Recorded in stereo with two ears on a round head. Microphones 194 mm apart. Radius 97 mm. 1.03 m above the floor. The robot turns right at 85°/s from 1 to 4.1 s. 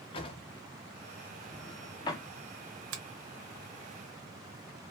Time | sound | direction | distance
0.1 | a drawer | 25° left (ahead or behind) | 0.6 m
2.9 | a finger snap | 70° right (ahead or behind) | 0.9 m